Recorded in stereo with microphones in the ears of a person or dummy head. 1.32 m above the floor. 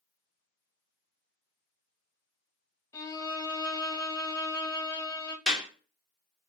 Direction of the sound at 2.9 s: 15° left (ahead or behind).